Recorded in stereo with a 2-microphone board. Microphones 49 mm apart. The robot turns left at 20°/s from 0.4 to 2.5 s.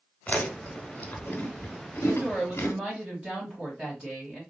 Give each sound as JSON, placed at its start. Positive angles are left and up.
{"t": 0.3, "sound": "chewing", "side_deg": 35, "distance_m": 1.0}
{"t": 2.0, "sound": "a woman speaking", "side_deg": -10, "distance_m": 1.5}